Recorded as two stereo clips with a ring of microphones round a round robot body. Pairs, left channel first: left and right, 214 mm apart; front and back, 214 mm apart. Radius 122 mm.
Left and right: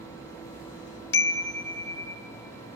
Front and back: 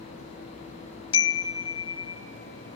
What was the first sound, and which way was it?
A chime, 70° left.